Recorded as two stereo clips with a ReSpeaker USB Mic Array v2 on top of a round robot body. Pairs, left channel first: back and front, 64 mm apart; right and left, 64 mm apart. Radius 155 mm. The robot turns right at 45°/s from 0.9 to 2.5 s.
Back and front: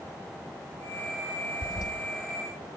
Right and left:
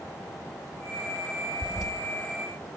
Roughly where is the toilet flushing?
Behind.